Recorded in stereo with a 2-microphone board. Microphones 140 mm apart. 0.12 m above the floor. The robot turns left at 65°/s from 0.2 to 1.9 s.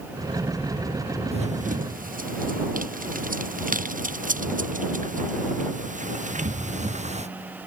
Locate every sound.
1.3 s running footsteps: 45° right (ahead or behind); by 7.3 s 55° right (ahead or behind)